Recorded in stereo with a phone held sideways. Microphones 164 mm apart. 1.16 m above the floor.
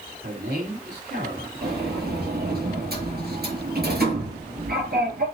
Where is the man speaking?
85° right, 3.5 m.